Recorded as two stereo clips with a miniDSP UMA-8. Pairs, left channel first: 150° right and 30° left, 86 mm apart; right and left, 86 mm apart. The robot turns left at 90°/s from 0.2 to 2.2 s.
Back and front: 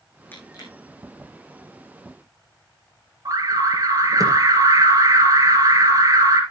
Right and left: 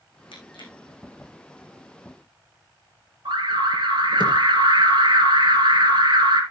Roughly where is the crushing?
Right.